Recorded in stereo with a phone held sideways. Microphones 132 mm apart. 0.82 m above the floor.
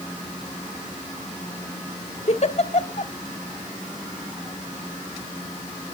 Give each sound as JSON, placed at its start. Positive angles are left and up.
{"t": 2.3, "sound": "a giggle", "side_deg": 55, "distance_m": 1.1}